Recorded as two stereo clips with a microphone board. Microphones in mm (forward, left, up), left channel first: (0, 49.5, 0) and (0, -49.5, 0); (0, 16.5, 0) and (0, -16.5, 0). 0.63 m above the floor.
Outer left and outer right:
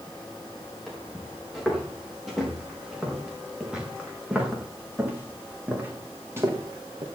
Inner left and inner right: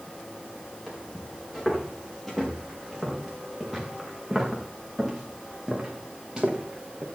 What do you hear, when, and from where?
0.9 s footsteps: 5° left (ahead or behind), 7 m; by 7.1 s 30° right (ahead or behind), 3.5 m